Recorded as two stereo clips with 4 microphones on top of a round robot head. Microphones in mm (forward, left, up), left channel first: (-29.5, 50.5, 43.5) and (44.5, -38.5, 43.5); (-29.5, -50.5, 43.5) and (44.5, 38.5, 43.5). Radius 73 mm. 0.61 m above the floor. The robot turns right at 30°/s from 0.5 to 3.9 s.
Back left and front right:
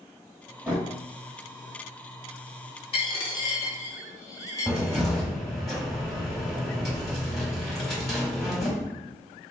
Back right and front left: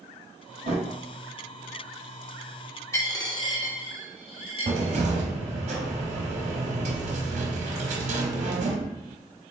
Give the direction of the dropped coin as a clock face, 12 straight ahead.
7 o'clock.